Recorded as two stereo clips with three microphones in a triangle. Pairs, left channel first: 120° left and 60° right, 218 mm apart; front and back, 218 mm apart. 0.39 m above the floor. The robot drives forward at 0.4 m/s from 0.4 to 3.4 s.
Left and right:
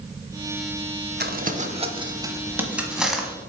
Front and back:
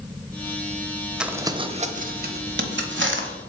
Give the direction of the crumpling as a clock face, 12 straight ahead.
3 o'clock.